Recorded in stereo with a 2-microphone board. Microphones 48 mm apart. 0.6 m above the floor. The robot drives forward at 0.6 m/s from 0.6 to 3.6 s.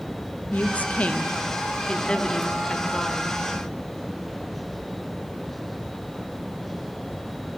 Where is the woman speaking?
30° left (ahead or behind), 0.7 m; by 3.5 s 10° left (ahead or behind), 1.9 m.